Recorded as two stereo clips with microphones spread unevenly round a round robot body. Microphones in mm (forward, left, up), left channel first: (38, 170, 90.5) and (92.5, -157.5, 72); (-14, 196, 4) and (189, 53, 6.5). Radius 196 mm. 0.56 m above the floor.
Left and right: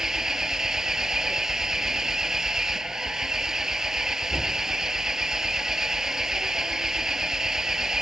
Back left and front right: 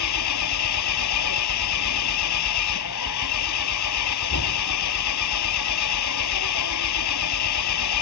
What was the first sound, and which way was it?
An engine running, 170° right.